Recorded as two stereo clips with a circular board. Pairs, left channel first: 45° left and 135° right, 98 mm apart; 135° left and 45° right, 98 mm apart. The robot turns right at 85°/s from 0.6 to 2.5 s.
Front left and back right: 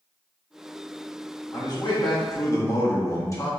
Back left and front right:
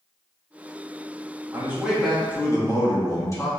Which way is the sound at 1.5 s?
5° left.